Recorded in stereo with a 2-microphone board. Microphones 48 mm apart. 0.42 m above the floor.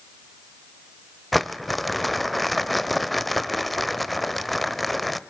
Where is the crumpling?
Centre (ahead or behind), 0.7 m.